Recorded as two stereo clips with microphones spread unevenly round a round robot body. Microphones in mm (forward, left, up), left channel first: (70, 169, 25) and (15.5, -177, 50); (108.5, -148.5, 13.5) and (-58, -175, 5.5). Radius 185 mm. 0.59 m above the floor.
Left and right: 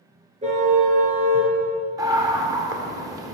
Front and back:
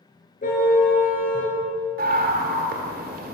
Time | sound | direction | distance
0.4 | a car horn | 30° right | 5 m
2.0 | a scream | straight behind | 2 m